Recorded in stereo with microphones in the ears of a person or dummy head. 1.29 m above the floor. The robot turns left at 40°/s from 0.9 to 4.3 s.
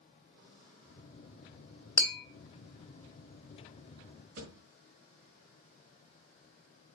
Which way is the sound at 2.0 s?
10° left (ahead or behind).